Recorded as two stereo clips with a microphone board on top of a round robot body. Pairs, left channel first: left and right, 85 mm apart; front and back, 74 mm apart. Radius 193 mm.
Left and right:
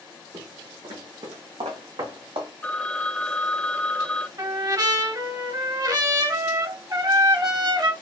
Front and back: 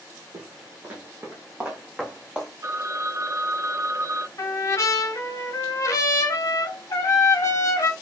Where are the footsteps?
140° right, 0.9 m; by 2.5 s 95° right, 2.5 m.